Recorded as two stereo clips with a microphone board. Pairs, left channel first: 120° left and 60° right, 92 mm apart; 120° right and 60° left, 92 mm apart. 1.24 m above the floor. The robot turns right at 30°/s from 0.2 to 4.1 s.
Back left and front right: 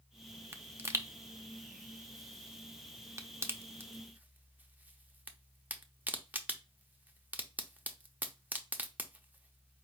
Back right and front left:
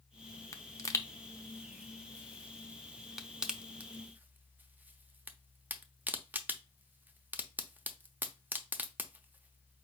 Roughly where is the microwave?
I don't hear a microwave.